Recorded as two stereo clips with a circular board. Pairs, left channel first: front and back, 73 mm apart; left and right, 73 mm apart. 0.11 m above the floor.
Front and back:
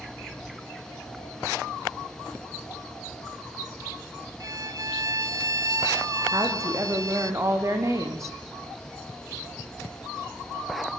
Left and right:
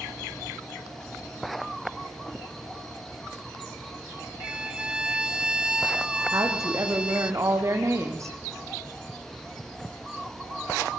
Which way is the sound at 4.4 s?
165° right.